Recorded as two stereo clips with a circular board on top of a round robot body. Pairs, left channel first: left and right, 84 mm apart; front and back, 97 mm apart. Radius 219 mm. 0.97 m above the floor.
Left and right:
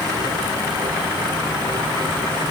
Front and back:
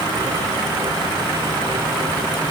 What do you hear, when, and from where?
Only background noise.